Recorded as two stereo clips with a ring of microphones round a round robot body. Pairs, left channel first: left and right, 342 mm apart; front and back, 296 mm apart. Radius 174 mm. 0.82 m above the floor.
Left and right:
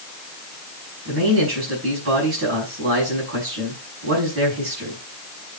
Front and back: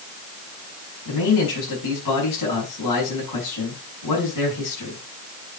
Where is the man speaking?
35° right, 5.5 m.